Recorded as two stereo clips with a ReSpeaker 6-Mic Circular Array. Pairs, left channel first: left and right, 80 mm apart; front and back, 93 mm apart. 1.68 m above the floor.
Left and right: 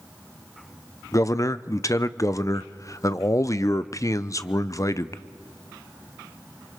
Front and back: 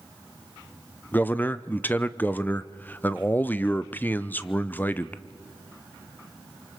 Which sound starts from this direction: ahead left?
A man speaking, at 1.1 s.